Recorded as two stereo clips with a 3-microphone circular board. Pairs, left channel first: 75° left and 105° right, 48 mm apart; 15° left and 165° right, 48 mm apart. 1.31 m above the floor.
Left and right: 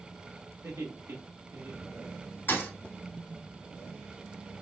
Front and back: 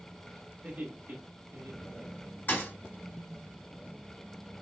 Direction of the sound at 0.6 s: 110° right.